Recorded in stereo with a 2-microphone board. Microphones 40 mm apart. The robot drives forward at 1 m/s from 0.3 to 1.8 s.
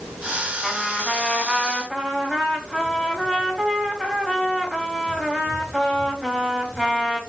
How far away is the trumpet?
About 4 m.